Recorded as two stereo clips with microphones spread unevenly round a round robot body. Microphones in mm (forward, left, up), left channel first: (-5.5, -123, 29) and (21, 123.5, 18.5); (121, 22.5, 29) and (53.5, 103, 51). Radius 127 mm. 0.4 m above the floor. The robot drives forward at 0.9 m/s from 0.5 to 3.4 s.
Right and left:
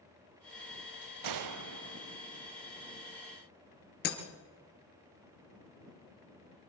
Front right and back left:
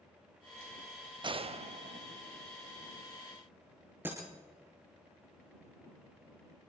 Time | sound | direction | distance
1.2 | a gunshot | 80° left | 0.6 m
4.0 | breaking glass | 150° right | 2.5 m